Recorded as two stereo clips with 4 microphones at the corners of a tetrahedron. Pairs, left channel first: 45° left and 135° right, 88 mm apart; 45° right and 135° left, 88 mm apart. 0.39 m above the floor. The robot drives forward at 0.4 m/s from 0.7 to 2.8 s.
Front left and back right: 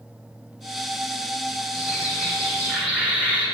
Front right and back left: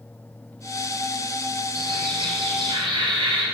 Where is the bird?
140° left, 1.4 m; by 3.5 s 150° left, 1.8 m.